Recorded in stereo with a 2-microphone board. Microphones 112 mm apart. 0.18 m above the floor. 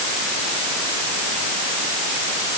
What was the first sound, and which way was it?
Only background noise.